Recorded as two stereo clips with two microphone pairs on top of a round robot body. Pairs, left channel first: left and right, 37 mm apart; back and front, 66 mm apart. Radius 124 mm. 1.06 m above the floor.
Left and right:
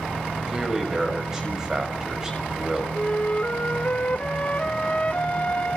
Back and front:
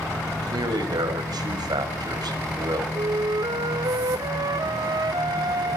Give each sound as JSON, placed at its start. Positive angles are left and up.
{"t": 0.5, "sound": "a man speaking", "azimuth_deg": -15, "distance_m": 6.0}
{"t": 3.0, "sound": "a flute", "azimuth_deg": 30, "distance_m": 1.0}